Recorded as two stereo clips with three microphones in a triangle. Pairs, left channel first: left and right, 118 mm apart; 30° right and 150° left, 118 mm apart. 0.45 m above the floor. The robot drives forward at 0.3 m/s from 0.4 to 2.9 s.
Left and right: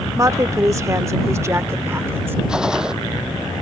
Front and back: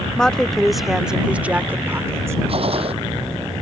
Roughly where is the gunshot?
Behind.